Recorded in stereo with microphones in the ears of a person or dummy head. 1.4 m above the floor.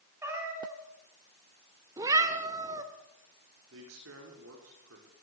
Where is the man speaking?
80° right, 5 m.